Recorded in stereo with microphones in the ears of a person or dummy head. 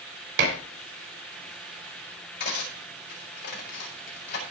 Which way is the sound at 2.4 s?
50° left (ahead or behind).